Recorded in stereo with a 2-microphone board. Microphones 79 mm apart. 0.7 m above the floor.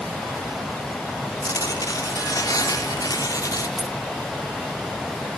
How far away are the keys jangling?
About 0.7 m.